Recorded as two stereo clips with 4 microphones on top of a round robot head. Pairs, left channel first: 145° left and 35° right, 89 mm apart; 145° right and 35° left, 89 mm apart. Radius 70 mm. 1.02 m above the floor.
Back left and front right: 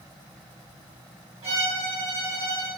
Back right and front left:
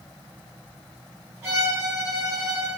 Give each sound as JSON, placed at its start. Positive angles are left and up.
{"t": 1.4, "sound": "a violin", "azimuth_deg": -20, "distance_m": 1.4}